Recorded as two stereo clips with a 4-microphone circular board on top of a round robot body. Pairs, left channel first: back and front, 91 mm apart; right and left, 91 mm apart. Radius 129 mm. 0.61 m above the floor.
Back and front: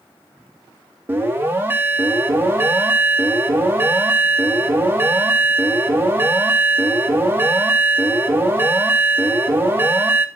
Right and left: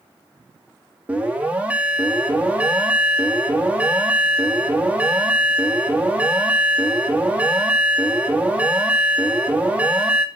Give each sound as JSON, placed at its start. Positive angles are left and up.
{"t": 1.1, "sound": "an alarm", "azimuth_deg": 35, "distance_m": 1.8}